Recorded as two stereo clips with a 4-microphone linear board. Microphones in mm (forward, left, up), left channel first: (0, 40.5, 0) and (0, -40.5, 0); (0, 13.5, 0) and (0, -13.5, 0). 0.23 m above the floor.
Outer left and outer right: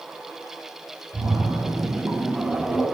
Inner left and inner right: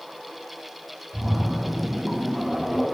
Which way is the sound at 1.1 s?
30° right (ahead or behind).